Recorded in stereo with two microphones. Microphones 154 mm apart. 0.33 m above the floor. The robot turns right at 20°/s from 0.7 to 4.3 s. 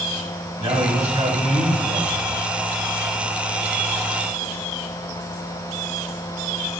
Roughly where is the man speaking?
Behind right.